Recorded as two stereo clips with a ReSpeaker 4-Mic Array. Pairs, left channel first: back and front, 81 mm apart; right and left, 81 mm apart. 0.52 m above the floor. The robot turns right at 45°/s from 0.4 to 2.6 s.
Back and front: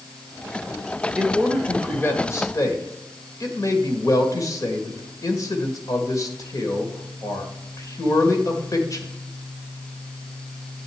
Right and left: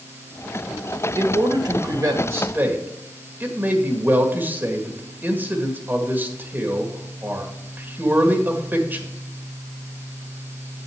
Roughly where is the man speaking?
Left.